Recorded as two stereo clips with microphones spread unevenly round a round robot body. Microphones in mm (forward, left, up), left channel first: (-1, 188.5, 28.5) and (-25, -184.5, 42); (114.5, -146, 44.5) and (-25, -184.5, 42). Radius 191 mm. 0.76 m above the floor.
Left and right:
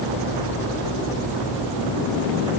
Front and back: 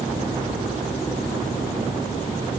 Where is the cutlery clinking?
No cutlery clinking in this recording.